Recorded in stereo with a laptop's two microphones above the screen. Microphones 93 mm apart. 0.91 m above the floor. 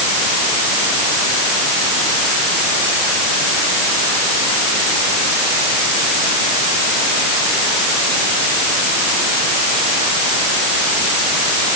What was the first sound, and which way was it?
Only background noise.